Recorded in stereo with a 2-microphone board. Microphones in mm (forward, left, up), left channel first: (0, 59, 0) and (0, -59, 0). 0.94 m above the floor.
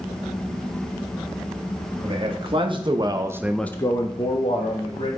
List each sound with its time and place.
2.0 s a man speaking: 50° right (ahead or behind), 2 m; by 5.1 s 50° left (ahead or behind), 2 m